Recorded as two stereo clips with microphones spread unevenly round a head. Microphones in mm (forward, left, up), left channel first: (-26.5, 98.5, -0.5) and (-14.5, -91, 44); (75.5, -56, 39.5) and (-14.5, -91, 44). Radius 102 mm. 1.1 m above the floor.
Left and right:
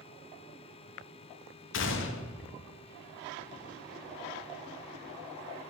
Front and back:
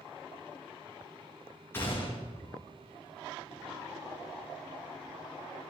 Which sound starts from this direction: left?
A gunshot, at 1.7 s.